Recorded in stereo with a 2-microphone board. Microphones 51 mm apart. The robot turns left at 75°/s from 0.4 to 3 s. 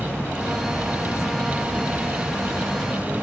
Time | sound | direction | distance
0.0 | an insect | 55° left | 1.2 m